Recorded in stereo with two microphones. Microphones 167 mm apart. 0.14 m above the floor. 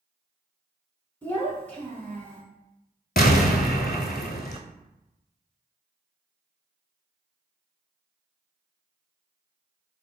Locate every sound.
1.2 s a child speaking: 10° left (ahead or behind), 0.7 m
3.2 s an explosion: 65° left (ahead or behind), 0.5 m